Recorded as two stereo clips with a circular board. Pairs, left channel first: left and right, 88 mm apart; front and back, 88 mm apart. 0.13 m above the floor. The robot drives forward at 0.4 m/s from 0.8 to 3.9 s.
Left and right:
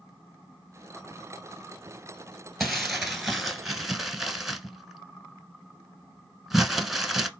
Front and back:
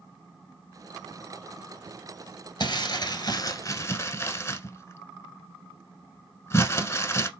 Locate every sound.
2.6 s crumpling: straight ahead, 0.9 m; by 7.3 s 5° right, 0.5 m